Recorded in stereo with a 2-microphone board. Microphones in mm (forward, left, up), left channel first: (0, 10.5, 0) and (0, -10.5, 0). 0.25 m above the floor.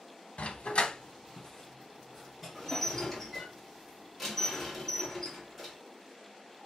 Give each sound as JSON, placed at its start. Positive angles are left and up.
{"t": 0.4, "sound": "a dog barking", "side_deg": 60, "distance_m": 0.5}
{"t": 2.5, "sound": "dishes clattering", "side_deg": 10, "distance_m": 1.7}